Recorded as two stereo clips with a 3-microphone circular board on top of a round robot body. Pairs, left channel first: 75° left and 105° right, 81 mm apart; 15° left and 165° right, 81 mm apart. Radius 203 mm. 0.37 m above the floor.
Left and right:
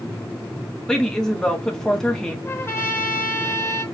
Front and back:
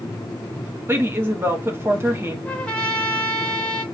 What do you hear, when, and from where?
0.9 s a woman speaking: 155° left, 1.4 m
2.5 s a trumpet: 75° left, 1.3 m